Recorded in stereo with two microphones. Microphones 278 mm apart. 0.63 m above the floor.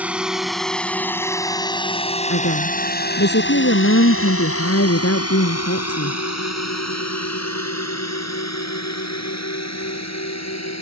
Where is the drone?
5° right (ahead or behind); by 10.8 s 75° left (ahead or behind).